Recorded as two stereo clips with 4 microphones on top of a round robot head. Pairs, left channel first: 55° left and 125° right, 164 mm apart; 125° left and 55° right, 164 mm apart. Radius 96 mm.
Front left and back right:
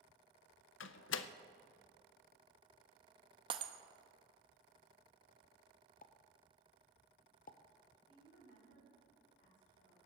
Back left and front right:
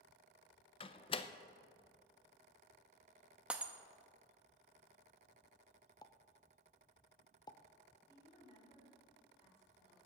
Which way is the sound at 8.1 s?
70° left.